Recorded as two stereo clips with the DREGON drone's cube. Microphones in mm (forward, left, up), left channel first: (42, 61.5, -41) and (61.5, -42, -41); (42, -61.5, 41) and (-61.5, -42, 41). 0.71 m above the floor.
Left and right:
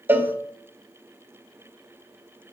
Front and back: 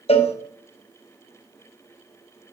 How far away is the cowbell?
About 0.8 m.